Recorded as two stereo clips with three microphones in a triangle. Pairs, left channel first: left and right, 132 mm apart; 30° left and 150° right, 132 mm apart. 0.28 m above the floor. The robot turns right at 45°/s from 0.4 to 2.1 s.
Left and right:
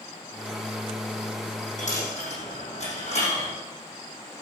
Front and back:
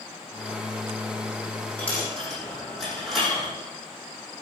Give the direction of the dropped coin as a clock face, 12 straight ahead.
8 o'clock.